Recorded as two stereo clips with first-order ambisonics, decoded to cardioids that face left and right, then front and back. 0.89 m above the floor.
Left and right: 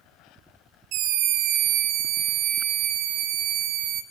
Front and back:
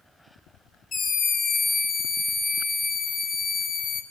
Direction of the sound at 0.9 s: 65° right.